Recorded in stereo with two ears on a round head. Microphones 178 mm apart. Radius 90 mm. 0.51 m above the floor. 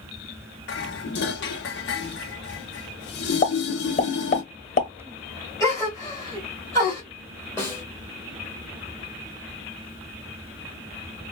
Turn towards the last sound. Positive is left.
turn(degrees=15)  # may be behind; listen again after turning